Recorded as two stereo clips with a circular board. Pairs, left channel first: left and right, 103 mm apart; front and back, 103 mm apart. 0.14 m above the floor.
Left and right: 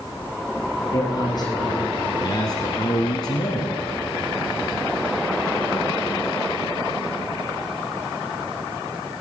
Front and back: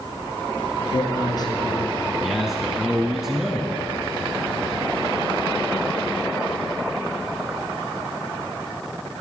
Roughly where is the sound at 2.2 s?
Left.